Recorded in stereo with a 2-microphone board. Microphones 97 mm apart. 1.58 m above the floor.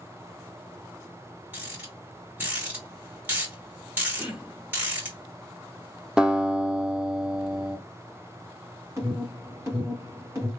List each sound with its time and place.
1.5 s a rattle: 20° right (ahead or behind), 2.5 m
4.2 s throat clearing: 10° right (ahead or behind), 0.9 m
6.2 s a guitar: 10° right (ahead or behind), 0.6 m
9.0 s an alarm: 30° right (ahead or behind), 2 m